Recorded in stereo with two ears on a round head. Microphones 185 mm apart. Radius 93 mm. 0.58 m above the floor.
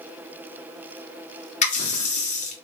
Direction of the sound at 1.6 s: 35° left (ahead or behind).